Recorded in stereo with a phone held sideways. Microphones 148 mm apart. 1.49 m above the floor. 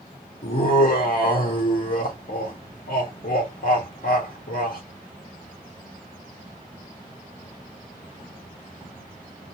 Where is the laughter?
70° left (ahead or behind), 0.7 m.